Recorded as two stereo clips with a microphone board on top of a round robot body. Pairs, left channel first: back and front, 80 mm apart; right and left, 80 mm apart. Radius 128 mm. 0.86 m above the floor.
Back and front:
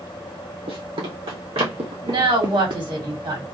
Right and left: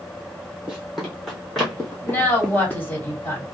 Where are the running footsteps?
10° left, 1.7 m; by 2.8 s 15° right, 2.5 m.